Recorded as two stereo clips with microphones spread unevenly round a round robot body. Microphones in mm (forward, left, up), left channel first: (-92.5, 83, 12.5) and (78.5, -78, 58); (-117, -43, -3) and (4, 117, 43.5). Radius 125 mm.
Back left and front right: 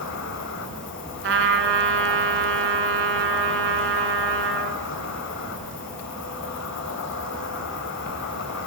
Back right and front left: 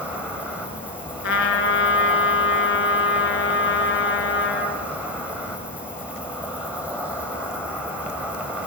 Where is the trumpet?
80° right, 3 m.